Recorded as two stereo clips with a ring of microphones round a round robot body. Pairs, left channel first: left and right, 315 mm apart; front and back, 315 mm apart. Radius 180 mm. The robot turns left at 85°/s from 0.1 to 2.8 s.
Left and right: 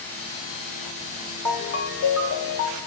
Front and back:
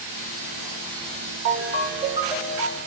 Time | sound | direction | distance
1.4 | a ringtone | 170° left | 1.0 m